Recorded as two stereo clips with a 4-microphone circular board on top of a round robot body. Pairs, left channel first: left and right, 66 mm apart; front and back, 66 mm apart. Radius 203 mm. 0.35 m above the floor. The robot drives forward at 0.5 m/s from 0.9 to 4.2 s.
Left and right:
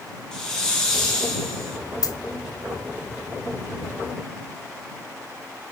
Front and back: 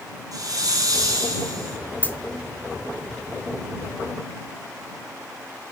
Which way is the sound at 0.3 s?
170° left.